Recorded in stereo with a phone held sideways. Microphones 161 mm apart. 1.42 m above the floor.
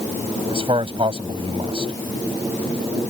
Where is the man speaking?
35° right (ahead or behind).